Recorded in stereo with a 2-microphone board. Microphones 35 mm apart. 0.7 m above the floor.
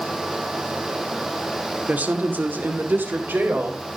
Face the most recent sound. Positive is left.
turn(degrees=-70)  # may be behind; listen again after turning